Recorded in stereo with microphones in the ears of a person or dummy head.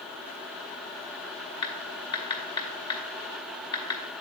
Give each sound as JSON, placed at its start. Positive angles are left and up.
{"t": 1.6, "sound": "typing on a keyboard", "side_deg": 30, "distance_m": 1.1}